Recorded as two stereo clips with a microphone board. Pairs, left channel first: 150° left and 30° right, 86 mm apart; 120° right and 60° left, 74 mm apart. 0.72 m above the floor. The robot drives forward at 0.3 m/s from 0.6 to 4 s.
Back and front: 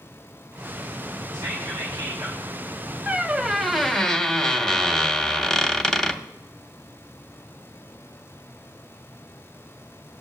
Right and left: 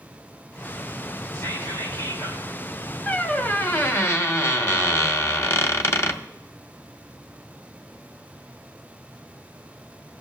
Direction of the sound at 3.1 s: 80° right.